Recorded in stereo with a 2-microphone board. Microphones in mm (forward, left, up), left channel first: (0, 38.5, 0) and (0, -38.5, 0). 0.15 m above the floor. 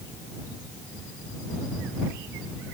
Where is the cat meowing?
No cat meowing in this recording.